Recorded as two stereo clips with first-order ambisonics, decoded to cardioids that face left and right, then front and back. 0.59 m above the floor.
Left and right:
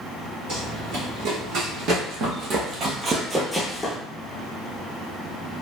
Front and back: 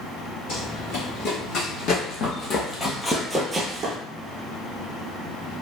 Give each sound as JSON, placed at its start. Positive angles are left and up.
{"t": 0.5, "sound": "running footsteps", "azimuth_deg": -45, "distance_m": 1.9}